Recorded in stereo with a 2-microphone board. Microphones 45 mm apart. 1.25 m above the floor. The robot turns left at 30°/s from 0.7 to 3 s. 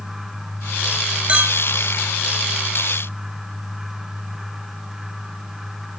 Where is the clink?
25° right (ahead or behind), 1.2 m; by 1.6 s 35° right (ahead or behind), 1.2 m.